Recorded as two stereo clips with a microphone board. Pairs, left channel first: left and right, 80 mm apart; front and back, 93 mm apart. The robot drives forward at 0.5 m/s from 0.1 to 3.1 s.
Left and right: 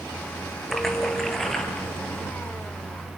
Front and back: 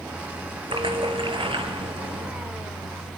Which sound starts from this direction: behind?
A splash, at 0.7 s.